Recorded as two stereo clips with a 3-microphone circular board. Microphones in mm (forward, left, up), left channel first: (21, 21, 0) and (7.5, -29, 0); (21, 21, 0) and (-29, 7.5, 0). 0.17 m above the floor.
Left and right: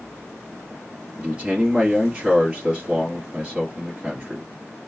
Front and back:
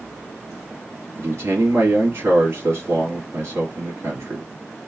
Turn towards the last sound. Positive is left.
turn(degrees=-170)